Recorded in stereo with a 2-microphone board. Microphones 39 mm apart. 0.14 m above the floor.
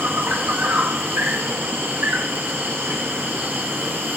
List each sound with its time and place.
0.0 s an insect: 80° right, 2.5 m